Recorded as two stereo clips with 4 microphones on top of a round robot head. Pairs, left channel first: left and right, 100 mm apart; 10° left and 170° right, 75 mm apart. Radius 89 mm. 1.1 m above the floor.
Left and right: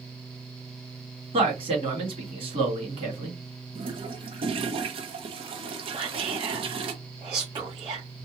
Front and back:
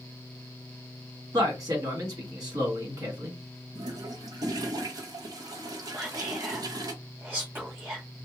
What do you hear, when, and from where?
1.3 s a man speaking: 125° right, 1.7 m
3.8 s a toilet flushing: 125° right, 0.6 m
5.9 s whispering: 110° right, 1.1 m